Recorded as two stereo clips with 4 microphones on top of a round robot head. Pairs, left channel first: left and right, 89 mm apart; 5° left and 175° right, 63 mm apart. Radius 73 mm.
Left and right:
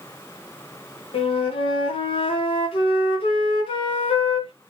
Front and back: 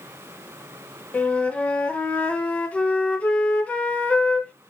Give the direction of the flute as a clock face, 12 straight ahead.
9 o'clock.